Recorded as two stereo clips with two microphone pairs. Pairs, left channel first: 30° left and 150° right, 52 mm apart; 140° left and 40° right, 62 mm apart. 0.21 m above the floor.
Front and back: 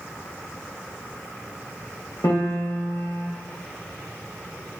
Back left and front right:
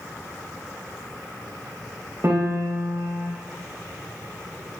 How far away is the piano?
About 4.5 m.